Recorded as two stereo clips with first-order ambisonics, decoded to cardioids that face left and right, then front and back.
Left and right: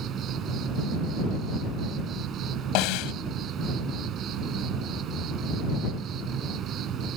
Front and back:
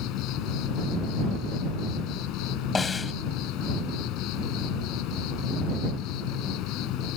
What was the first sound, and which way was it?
An insect, 35° right.